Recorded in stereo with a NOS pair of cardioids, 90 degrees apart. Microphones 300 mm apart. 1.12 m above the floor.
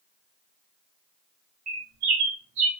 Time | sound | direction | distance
1.7 | a bird | 70° right | 1.8 m